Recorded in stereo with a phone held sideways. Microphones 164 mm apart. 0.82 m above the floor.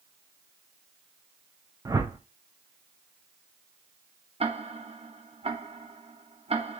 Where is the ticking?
40° right (ahead or behind), 0.7 m.